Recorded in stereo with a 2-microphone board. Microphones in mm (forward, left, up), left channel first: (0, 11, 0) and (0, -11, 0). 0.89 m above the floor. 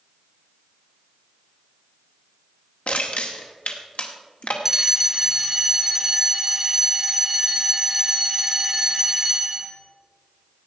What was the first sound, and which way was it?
Crushing, 75° left (ahead or behind).